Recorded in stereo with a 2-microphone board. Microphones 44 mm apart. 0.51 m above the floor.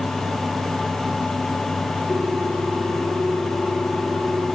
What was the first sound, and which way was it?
A ringtone, 20° left (ahead or behind).